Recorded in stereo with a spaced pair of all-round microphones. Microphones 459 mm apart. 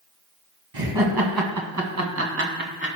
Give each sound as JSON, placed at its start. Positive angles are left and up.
{"t": 0.7, "sound": "laughter", "side_deg": -55, "distance_m": 2.0}